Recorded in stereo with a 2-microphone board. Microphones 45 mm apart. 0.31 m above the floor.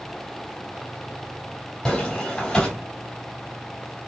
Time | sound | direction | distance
1.9 | footsteps | 15° left (ahead or behind) | 2.5 m